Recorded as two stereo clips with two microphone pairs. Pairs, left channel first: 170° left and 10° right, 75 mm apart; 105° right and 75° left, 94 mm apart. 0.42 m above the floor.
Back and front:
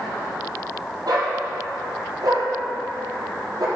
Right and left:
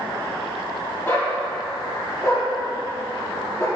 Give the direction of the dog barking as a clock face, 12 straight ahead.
1 o'clock.